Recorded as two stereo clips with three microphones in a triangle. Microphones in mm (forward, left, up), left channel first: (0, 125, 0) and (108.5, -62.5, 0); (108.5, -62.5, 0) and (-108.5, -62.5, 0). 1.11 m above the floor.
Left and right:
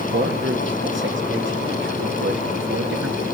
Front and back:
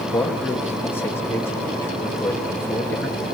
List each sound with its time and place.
0.1 s a man speaking: 80° right, 2 m